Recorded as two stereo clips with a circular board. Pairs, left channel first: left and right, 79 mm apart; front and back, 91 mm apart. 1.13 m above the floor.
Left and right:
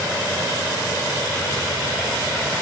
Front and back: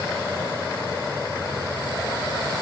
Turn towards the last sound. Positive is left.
No sound to turn to.